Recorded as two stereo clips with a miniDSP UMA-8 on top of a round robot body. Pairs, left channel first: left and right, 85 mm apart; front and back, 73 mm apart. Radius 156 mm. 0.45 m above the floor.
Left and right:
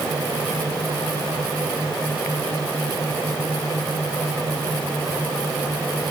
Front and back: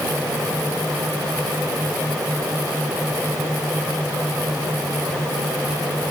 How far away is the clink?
No clink in this recording.